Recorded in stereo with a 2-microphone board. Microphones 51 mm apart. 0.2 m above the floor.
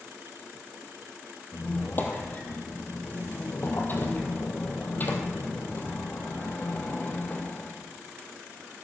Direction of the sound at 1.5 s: 40° left (ahead or behind).